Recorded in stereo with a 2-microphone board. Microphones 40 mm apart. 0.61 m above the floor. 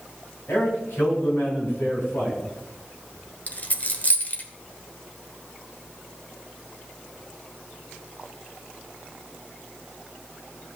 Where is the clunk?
No clunk in this recording.